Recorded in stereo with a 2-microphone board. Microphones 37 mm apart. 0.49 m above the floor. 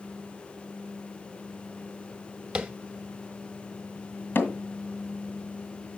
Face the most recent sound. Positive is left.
turn(degrees=65)  # may be behind; listen again after turning